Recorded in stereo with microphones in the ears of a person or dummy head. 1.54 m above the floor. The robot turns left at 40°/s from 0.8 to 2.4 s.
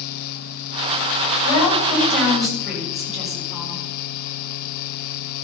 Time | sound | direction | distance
1.4 | a woman speaking | 35° left | 6.5 m